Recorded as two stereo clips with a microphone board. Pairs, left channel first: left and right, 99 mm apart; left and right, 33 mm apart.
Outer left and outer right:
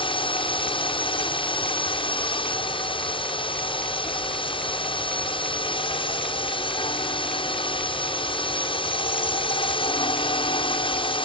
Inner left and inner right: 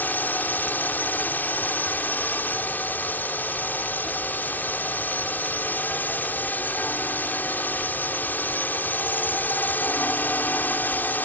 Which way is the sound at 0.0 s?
55° left (ahead or behind).